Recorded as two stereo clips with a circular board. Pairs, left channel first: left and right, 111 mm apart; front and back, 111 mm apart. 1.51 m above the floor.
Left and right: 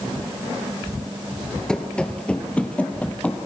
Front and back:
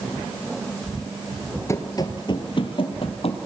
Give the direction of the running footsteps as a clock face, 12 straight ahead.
11 o'clock.